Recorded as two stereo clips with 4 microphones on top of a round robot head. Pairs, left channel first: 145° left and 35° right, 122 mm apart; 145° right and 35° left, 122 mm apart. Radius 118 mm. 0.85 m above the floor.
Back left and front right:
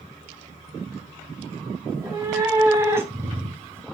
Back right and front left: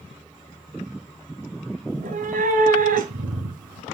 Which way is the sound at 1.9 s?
35° left.